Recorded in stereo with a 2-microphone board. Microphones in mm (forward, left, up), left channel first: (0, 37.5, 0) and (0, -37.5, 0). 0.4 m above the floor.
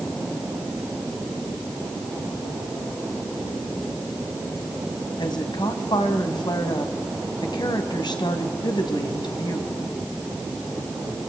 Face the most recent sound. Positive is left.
turn(degrees=70)  # may be behind; listen again after turning